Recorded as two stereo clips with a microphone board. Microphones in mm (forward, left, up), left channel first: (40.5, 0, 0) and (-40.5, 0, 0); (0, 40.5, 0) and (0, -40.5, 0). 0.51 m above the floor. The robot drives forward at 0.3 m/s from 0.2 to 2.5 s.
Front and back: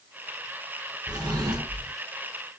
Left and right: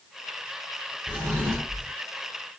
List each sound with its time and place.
1.1 s a drawer: 155° right, 1.2 m; by 1.9 s 160° right, 1.4 m